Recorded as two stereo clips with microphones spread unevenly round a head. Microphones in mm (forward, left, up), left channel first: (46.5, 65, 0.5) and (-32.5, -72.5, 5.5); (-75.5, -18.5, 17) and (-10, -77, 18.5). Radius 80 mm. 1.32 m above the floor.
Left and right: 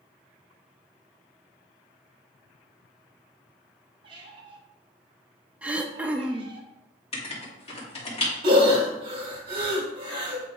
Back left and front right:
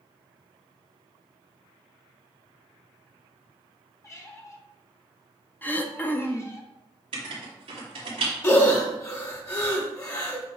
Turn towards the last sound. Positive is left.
turn(degrees=-175)